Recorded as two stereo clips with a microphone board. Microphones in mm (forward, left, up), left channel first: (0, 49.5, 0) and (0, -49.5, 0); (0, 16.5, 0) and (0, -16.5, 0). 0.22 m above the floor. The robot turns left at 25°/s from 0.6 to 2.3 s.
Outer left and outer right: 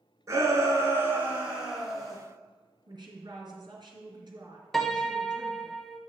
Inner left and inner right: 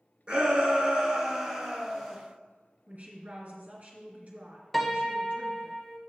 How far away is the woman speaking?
About 2.5 m.